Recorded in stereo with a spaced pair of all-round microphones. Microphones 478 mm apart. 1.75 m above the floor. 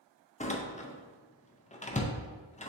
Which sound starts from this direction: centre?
A door slam, at 0.4 s.